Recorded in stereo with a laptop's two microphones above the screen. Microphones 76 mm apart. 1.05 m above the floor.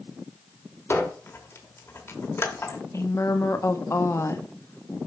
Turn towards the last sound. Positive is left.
turn(degrees=40)  # may be behind; listen again after turning